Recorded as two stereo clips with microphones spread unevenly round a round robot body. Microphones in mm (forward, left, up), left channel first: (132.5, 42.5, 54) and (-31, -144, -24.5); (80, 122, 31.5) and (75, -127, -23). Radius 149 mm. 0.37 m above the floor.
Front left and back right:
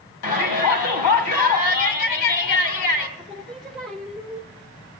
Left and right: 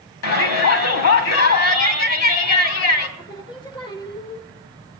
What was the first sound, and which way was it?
A shout, 70° left.